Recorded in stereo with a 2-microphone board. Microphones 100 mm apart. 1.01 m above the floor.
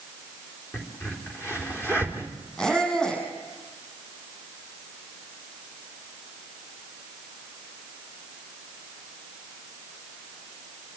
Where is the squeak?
10° left (ahead or behind), 6.5 m.